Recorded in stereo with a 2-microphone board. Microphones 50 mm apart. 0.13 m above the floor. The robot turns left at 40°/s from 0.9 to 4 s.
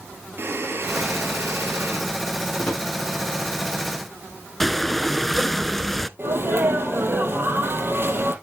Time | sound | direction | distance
0.4 | breathing | 60° right | 3 m
2.6 | a drawer | 40° left (ahead or behind) | 5.5 m
4.6 | breathing | 5° left (ahead or behind) | 0.6 m
6.2 | a sneeze | 50° right (ahead or behind) | 3.5 m